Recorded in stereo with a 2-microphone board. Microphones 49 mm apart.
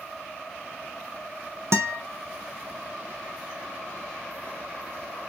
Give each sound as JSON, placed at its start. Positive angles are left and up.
{"t": 1.7, "sound": "a guitar", "side_deg": -65, "distance_m": 0.6}